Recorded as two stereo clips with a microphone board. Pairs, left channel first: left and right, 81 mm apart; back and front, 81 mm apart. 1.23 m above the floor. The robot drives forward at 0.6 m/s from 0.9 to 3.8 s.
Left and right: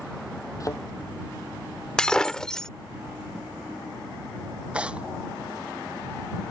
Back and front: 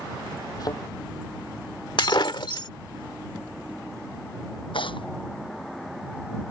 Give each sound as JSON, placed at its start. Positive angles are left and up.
{"t": 0.6, "sound": "a thud", "azimuth_deg": 140}
{"t": 2.0, "sound": "breaking glass", "azimuth_deg": 170}
{"t": 4.7, "sound": "tearing paper", "azimuth_deg": -165}